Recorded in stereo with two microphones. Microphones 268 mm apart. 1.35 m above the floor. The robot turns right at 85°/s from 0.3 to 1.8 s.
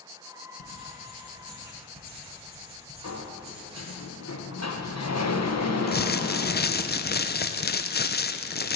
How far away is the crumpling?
About 0.6 m.